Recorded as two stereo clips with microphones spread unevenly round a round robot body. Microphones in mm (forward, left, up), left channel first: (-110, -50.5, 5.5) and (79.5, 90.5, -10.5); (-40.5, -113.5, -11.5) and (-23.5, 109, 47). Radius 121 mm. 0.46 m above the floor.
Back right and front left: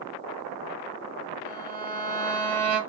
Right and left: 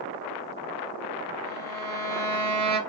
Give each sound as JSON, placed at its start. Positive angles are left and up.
{"t": 1.4, "sound": "a violin", "azimuth_deg": 95, "distance_m": 1.8}